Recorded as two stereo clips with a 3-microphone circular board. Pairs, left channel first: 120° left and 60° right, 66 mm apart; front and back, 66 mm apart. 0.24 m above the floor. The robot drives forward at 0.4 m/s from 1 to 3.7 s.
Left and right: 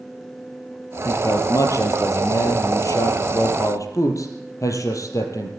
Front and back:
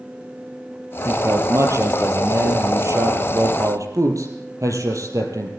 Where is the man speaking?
145° left, 4.5 m; by 5.5 s 150° left, 5.5 m.